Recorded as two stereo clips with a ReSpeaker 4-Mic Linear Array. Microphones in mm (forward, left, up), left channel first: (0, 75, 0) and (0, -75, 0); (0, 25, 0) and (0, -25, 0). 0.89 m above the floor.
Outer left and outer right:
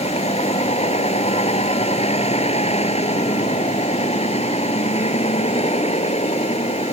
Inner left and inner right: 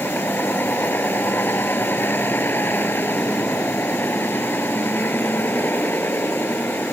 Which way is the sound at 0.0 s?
40° left (ahead or behind).